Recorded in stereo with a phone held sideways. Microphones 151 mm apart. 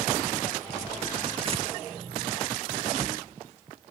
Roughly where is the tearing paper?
Right.